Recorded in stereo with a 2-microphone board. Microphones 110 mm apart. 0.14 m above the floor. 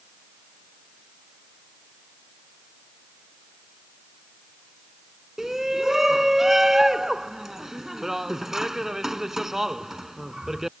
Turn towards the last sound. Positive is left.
turn(degrees=-5)  # may be behind; listen again after turning